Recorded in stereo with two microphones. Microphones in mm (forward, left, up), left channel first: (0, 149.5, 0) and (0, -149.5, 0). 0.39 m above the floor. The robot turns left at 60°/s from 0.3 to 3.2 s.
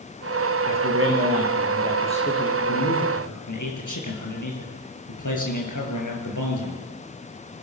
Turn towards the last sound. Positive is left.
turn(degrees=95)